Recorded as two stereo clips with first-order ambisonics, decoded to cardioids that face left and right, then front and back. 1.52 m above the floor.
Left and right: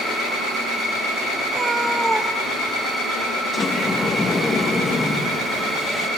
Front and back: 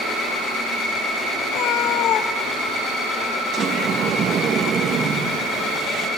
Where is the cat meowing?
25° right, 1.1 m; by 3.4 s 45° left, 1.1 m.